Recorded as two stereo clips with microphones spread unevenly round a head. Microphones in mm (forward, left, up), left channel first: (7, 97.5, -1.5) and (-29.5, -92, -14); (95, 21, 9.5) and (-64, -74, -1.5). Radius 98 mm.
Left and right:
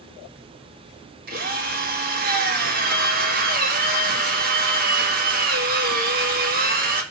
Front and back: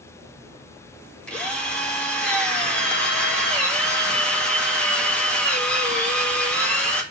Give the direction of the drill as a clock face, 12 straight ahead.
2 o'clock.